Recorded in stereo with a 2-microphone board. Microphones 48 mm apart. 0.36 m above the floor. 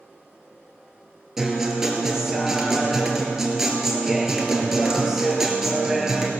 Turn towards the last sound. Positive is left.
turn(degrees=-10)  # may be behind; listen again after turning